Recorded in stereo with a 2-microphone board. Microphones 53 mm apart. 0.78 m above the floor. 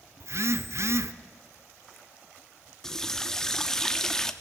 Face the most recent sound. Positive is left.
turn(degrees=10)  # may be behind; listen again after turning